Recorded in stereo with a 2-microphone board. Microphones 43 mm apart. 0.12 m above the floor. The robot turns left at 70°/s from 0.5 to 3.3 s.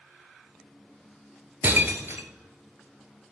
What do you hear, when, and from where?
1.6 s breaking glass: 45° right (ahead or behind), 1.0 m; by 2.3 s 60° right (ahead or behind), 1.0 m